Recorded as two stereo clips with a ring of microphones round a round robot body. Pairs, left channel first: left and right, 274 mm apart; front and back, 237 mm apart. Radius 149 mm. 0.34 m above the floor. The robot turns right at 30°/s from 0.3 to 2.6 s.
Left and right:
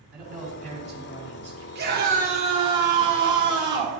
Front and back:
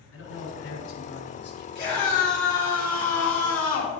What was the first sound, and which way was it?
A man speaking, 10° right.